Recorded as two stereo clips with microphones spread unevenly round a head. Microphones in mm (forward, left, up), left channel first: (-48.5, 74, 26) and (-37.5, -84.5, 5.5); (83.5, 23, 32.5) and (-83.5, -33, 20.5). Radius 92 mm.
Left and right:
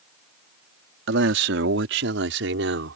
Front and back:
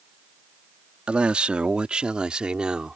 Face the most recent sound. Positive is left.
turn(degrees=-75)